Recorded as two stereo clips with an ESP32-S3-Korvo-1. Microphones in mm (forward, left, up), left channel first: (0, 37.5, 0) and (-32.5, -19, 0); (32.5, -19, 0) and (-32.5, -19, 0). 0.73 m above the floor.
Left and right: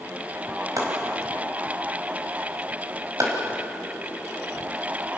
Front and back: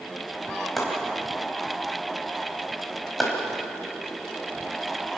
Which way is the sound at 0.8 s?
85° right.